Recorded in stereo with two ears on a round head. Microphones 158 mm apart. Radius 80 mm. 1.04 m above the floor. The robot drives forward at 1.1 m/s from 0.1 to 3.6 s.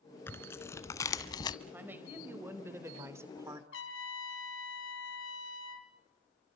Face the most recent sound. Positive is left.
turn(degrees=75)  # may be behind; listen again after turning